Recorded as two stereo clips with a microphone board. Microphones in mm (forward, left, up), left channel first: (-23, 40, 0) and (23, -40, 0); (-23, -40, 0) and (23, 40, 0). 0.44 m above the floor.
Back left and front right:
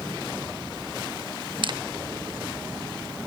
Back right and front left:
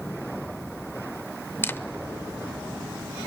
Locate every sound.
1.6 s a camera shutter: 60° right, 0.6 m